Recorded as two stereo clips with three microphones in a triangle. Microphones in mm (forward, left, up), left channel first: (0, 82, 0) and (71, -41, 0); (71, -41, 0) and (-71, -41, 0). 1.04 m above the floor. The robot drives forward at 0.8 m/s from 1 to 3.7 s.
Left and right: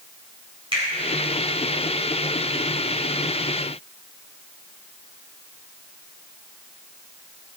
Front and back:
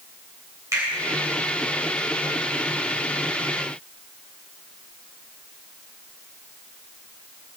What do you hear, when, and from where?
0.7 s a finger snap: 110° right, 3.5 m